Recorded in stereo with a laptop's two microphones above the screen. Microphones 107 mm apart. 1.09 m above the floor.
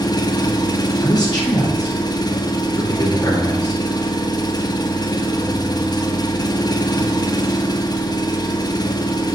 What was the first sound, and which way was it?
An engine running, 40° left (ahead or behind).